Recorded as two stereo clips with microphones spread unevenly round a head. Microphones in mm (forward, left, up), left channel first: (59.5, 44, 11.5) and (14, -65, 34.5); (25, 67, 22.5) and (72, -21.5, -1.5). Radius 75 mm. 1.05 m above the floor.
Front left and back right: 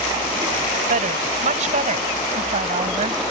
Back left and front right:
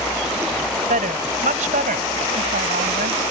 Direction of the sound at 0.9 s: 95° right.